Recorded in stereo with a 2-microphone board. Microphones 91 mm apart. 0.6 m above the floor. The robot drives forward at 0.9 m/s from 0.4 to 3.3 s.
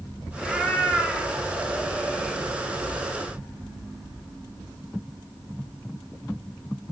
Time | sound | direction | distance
0.4 | a cat meowing | centre (ahead or behind) | 4 m